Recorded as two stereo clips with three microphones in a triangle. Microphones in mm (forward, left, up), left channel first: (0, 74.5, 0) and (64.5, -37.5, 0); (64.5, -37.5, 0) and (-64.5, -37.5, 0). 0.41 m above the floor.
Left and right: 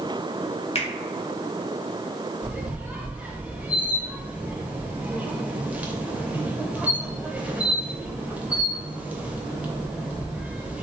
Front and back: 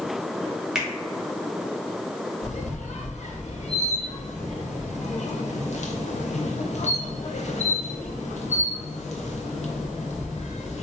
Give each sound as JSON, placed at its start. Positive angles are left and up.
{"t": 0.8, "sound": "a finger snap", "azimuth_deg": 95, "distance_m": 0.8}
{"t": 2.4, "sound": "a squeak", "azimuth_deg": 20, "distance_m": 0.6}